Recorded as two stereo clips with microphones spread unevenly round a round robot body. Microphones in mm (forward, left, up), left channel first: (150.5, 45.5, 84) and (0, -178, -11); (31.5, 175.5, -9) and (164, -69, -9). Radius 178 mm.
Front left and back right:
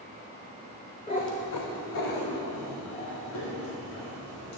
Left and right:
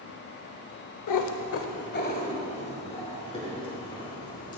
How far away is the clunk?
I don't hear a clunk.